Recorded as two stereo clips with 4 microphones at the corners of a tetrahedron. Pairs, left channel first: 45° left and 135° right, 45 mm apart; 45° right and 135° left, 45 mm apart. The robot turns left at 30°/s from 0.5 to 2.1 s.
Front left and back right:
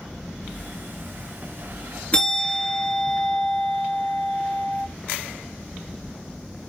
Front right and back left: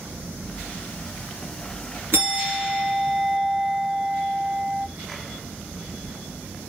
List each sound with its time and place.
2.1 s a bell: 110° left, 2.5 m